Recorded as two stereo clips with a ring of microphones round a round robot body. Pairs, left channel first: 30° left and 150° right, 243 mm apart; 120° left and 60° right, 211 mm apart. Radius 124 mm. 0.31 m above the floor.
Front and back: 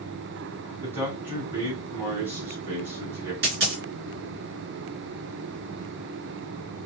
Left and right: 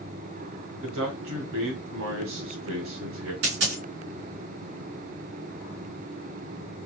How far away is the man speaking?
About 3 m.